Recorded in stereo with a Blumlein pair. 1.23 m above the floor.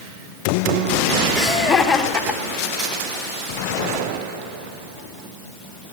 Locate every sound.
1.4 s laughter: 20° left, 3.5 m; by 3.0 s 35° left, 2.5 m